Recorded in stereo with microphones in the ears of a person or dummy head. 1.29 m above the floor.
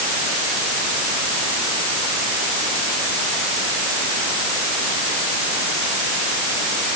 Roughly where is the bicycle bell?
I don't hear a bicycle bell.